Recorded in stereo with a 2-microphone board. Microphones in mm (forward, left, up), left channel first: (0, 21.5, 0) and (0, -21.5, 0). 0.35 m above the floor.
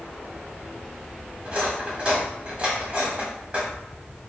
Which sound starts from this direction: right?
Cutlery clinking, at 1.4 s.